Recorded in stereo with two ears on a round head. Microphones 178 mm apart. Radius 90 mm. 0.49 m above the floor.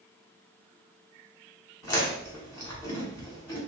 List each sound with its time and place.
1.8 s chewing: 15° left (ahead or behind), 1.3 m